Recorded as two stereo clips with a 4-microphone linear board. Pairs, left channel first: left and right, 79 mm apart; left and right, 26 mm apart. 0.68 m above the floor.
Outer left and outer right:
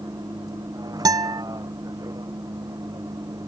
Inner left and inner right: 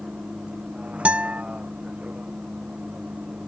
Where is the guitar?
60° right (ahead or behind).